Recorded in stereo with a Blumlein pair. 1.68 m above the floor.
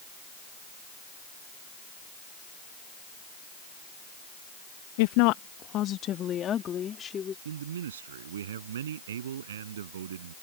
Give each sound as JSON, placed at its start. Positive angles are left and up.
{"t": 5.0, "sound": "a woman speaking", "azimuth_deg": 50}
{"t": 7.5, "sound": "a man speaking", "azimuth_deg": -60}